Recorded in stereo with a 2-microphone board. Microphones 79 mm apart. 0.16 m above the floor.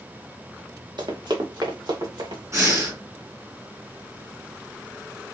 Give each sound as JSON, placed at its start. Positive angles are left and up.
{"t": 1.0, "sound": "running footsteps", "side_deg": -65, "distance_m": 1.3}
{"t": 2.5, "sound": "breathing", "side_deg": -40, "distance_m": 1.5}